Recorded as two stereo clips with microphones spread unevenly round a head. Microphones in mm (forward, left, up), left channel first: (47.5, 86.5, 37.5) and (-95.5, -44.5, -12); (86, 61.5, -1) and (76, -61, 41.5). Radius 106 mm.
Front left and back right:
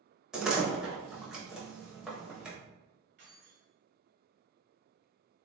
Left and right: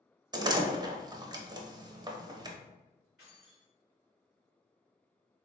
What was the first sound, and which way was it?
A door slam, 45° right.